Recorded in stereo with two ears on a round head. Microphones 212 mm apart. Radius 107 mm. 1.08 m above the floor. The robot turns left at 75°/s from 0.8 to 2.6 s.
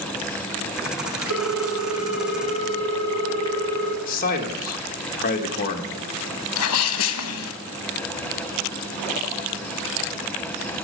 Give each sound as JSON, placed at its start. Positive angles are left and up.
{"t": 1.3, "sound": "a ringtone", "azimuth_deg": 120, "distance_m": 1.3}
{"t": 4.1, "sound": "a man speaking", "side_deg": 35, "distance_m": 1.2}
{"t": 6.6, "sound": "a sneeze", "side_deg": 65, "distance_m": 1.1}